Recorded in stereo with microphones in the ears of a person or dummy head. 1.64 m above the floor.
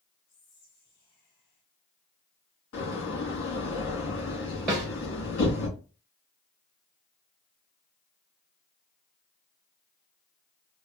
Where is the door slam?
75° left (ahead or behind), 2.5 m.